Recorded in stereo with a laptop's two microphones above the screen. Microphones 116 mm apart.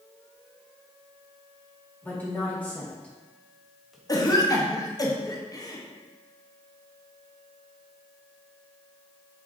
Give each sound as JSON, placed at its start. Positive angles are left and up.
{"t": 2.0, "sound": "a woman speaking", "side_deg": 15, "distance_m": 1.7}
{"t": 4.1, "sound": "a cough", "side_deg": 30, "distance_m": 0.9}